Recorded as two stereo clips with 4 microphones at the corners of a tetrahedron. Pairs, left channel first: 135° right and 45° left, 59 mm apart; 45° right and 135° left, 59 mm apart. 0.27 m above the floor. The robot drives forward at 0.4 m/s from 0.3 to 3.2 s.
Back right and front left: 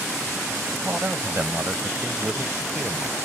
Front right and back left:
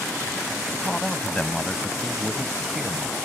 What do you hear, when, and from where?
0.7 s a man speaking: 20° left; by 3.2 s 75° left